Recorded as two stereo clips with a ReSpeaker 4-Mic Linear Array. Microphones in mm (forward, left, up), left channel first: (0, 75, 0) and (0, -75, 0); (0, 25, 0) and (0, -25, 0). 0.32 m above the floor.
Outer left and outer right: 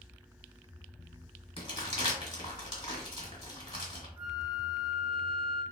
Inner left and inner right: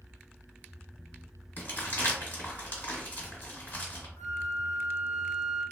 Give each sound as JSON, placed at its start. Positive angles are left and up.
{"t": 1.6, "sound": "crumpling", "side_deg": 35, "distance_m": 1.5}
{"t": 4.2, "sound": "a flute", "side_deg": 70, "distance_m": 0.6}